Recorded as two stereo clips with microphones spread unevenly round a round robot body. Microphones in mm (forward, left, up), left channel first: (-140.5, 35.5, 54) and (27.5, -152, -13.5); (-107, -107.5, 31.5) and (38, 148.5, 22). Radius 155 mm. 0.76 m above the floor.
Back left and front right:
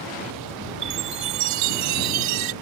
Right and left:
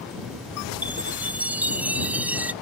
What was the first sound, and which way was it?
A chime, 25° right.